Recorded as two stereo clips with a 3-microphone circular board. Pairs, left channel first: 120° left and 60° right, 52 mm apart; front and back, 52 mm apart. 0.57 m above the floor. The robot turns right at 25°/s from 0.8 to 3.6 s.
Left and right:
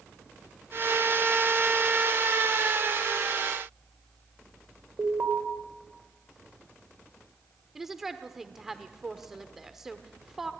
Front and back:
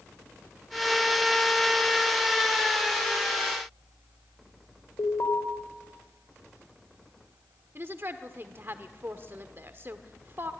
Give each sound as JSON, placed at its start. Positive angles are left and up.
{"t": 5.0, "sound": "an alarm", "azimuth_deg": -15, "distance_m": 3.5}
{"t": 7.8, "sound": "a woman speaking", "azimuth_deg": -140, "distance_m": 1.3}